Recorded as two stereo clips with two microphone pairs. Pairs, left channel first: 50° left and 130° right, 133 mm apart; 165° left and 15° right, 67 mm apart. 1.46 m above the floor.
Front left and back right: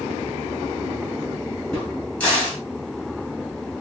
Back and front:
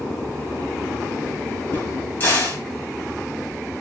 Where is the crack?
125° left, 1.7 m.